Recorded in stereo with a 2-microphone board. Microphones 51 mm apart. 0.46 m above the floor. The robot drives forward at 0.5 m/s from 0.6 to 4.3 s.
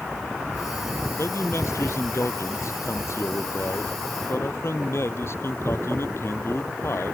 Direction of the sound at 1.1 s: 60° left (ahead or behind).